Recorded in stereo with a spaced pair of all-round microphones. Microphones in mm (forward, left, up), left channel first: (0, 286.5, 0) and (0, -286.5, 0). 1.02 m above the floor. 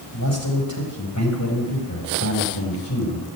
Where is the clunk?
I don't hear a clunk.